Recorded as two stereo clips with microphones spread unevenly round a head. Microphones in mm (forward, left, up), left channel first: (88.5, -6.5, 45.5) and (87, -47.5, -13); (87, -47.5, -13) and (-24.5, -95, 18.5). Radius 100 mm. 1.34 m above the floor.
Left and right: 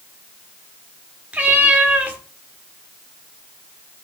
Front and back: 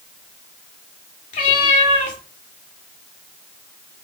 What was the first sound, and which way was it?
A cat meowing, 20° left.